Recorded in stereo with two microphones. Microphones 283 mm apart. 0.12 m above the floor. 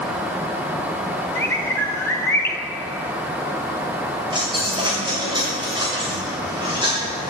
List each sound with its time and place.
1.4 s a bird: 10° left (ahead or behind), 1.0 m
4.3 s a dropped coin: 15° right (ahead or behind), 6.5 m